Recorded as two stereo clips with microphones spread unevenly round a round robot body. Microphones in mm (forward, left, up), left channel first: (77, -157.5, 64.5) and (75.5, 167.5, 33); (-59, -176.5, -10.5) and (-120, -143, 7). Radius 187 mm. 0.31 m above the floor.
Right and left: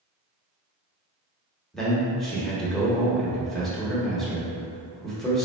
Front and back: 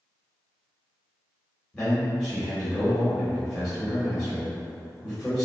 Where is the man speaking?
15° left, 1.1 m.